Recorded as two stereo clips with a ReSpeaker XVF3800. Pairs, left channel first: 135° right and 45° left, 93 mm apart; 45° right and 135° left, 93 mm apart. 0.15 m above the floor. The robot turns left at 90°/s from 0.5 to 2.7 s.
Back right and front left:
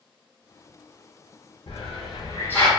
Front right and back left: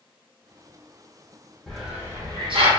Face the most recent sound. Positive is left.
turn(degrees=140)